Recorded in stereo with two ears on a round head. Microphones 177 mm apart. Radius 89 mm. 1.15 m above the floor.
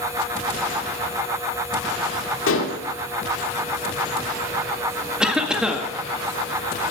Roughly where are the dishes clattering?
Left.